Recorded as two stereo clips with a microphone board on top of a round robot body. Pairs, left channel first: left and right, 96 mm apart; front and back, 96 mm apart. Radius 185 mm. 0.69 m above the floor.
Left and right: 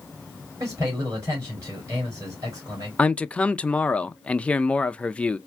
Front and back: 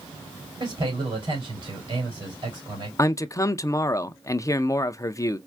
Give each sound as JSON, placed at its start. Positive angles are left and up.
{"t": 0.6, "sound": "a man speaking", "azimuth_deg": -145, "distance_m": 3.0}
{"t": 3.0, "sound": "a man speaking", "azimuth_deg": 20, "distance_m": 0.5}